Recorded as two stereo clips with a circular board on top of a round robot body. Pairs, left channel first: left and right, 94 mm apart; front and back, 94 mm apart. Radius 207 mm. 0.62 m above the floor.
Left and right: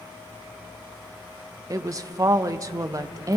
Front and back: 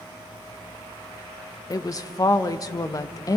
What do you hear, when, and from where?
1.7 s a woman speaking: 45° right, 0.9 m